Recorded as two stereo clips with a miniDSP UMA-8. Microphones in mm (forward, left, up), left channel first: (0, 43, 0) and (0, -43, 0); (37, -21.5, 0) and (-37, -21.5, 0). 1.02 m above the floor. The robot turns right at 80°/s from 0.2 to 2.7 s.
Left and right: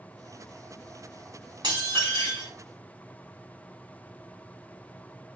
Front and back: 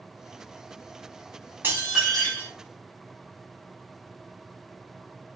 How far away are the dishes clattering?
About 1.8 m.